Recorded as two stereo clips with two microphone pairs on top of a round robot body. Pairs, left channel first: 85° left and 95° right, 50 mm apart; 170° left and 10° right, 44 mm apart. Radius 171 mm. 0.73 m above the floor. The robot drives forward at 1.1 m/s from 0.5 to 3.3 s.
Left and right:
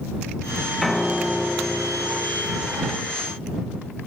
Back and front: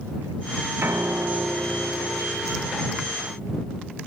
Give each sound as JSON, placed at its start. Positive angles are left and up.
{"t": 0.8, "sound": "a piano", "azimuth_deg": 0, "distance_m": 1.3}